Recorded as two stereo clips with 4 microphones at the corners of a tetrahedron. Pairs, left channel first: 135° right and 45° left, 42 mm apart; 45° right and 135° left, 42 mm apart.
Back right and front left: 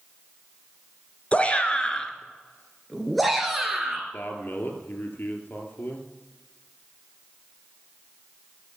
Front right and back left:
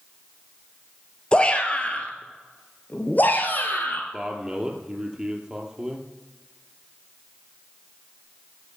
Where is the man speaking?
155° right, 2.5 m.